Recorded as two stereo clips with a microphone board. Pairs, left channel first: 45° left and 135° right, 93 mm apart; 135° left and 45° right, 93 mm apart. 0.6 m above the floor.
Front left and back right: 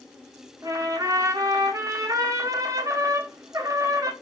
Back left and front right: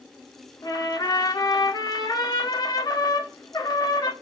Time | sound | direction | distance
0.6 | a trumpet | 175° left | 0.8 m